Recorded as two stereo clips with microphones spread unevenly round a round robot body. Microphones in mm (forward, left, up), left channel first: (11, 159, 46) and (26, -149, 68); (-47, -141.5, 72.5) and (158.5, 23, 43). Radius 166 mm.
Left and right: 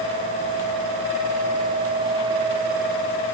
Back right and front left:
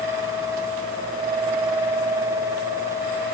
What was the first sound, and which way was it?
Only background noise.